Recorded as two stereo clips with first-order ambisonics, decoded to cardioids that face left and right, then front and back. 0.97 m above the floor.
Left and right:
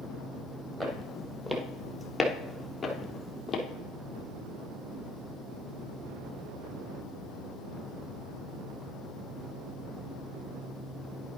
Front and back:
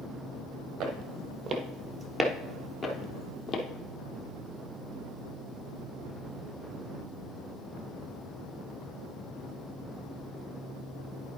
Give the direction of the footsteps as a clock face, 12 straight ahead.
5 o'clock.